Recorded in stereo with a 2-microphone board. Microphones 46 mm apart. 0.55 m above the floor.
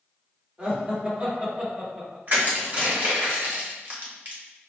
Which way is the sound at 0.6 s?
35° right (ahead or behind).